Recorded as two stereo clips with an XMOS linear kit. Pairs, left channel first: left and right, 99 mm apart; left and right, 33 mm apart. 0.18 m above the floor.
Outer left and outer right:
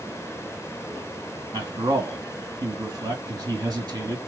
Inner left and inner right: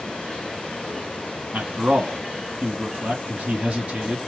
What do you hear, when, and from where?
1.5 s a man speaking: 35° right (ahead or behind), 1.7 m